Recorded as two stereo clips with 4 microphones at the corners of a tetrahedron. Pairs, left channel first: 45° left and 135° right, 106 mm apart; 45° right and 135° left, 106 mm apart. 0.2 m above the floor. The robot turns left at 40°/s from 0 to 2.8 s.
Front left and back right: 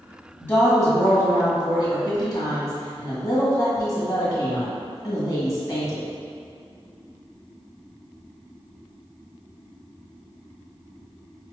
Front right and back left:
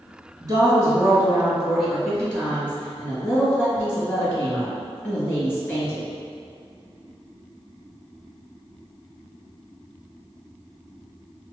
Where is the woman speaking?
105° left, 1.5 m; by 6.0 s 10° left, 1.5 m.